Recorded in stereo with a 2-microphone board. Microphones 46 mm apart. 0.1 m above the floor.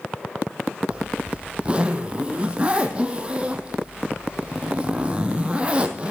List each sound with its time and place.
0.9 s a zipper: 25° right (ahead or behind), 1.4 m